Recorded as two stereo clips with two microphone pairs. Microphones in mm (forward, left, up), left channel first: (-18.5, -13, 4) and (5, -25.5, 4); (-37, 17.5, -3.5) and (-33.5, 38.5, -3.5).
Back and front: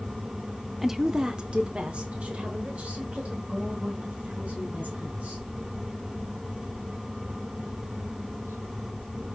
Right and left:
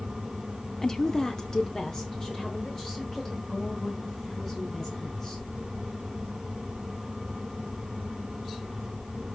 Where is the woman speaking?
95° right, 0.7 m; by 5.5 s 40° right, 3.5 m.